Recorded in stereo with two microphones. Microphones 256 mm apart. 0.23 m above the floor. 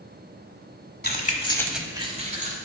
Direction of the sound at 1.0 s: 40° left (ahead or behind).